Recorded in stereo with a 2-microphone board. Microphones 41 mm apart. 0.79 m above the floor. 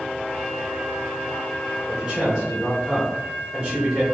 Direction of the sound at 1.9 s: 20° right (ahead or behind).